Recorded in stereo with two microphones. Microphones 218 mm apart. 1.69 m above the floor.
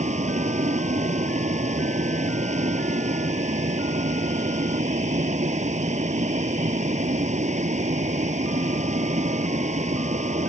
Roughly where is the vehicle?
Right.